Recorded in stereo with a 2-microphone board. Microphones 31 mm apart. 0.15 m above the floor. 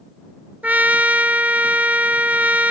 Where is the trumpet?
65° right (ahead or behind).